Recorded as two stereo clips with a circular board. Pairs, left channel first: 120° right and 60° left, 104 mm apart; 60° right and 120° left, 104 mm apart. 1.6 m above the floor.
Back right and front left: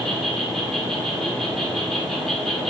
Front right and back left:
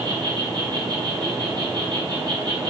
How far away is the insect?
About 1.1 m.